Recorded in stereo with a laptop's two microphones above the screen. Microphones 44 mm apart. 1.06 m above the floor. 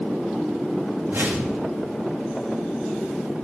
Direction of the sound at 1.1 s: 65° right (ahead or behind).